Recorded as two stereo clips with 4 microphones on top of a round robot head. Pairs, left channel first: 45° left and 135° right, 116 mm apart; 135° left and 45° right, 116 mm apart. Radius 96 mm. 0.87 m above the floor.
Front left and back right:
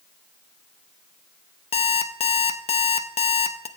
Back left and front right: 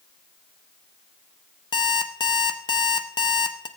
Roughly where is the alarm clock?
Left.